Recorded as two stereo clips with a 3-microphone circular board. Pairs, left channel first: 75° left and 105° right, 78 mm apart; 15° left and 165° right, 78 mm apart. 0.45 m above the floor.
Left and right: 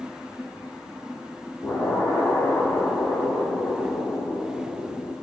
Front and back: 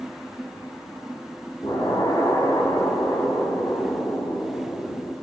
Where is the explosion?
10° left, 4.5 m.